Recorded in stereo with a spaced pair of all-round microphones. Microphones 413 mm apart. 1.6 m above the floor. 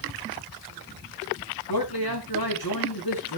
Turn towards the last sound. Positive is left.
turn(degrees=60)  # may be behind; listen again after turning